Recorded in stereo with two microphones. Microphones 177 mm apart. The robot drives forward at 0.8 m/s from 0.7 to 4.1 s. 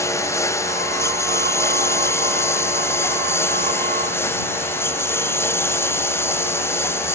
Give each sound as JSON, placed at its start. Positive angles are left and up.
{"t": 0.0, "sound": "a lawn mower", "side_deg": 15}